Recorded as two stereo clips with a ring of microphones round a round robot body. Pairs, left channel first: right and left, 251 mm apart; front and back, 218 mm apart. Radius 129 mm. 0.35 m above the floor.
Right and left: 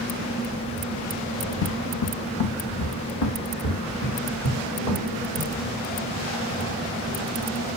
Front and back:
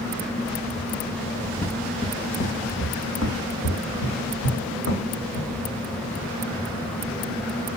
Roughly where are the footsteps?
Right.